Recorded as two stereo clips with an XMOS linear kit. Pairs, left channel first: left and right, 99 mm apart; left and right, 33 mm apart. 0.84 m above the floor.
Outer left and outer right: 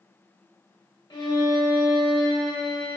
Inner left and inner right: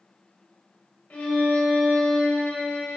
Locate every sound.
1.1 s a violin: 40° left (ahead or behind), 0.7 m